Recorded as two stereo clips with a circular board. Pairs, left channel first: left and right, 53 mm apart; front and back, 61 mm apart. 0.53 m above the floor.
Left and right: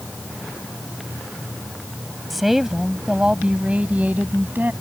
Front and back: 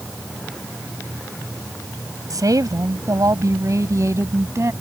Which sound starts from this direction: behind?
A woman speaking, at 2.3 s.